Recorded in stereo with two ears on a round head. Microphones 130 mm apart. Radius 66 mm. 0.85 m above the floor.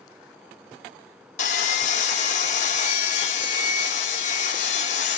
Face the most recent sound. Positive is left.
turn(degrees=50)  # may be behind; listen again after turning